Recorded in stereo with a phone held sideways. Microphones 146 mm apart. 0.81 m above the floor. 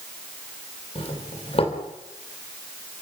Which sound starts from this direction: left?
A doorbell, at 0.9 s.